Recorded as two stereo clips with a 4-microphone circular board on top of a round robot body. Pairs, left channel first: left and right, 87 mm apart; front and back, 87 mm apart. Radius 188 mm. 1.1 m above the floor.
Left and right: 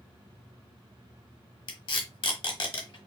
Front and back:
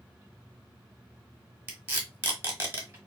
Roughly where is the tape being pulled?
Behind left.